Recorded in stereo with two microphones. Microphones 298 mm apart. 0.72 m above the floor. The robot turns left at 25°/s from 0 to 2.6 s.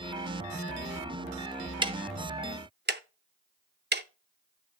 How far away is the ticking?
About 0.6 m.